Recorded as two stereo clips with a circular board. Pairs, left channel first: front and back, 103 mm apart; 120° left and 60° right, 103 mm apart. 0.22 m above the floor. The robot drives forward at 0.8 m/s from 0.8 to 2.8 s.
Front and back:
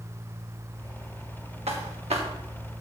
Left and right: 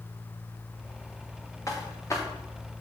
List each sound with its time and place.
1.7 s footsteps: 175° left, 3 m